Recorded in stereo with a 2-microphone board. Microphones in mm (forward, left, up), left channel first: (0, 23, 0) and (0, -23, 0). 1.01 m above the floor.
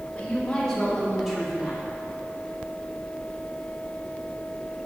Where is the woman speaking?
25° left (ahead or behind), 2.5 m; by 1.9 s 20° right (ahead or behind), 2 m.